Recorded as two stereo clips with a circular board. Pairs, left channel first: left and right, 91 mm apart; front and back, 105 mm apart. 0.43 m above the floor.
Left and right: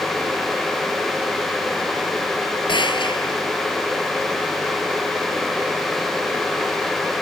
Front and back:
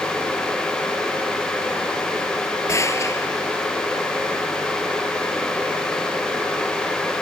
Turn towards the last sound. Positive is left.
turn(degrees=60)